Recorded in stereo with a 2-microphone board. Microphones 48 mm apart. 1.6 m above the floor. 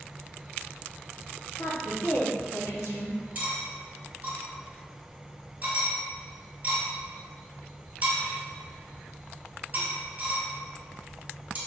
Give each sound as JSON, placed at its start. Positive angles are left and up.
{"t": 1.6, "sound": "a woman speaking", "side_deg": 65, "distance_m": 0.9}
{"t": 3.4, "sound": "cutlery clinking", "side_deg": -30, "distance_m": 1.0}